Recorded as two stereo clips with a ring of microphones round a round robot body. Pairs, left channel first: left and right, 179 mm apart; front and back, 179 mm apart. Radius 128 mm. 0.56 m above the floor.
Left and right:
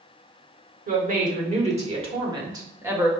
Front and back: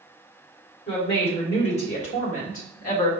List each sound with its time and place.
0.9 s a woman speaking: 60° right, 2 m; by 3.1 s 15° right, 1.5 m